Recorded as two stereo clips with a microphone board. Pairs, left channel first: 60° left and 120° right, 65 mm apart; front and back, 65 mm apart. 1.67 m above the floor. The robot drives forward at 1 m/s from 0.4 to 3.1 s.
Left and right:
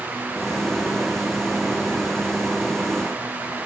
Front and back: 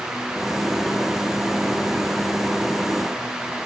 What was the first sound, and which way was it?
Only background noise.